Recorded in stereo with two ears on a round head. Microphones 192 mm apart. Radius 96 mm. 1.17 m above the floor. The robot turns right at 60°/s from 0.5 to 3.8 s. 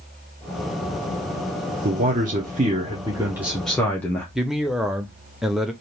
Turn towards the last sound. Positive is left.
turn(degrees=0)  # may be behind; listen again after turning